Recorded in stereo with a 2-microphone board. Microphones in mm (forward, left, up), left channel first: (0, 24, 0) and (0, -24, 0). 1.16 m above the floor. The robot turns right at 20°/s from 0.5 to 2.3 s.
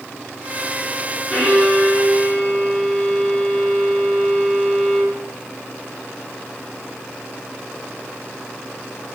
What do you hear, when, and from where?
1.3 s a violin: 5° right (ahead or behind), 5 m; by 5.2 s 10° left (ahead or behind), 5 m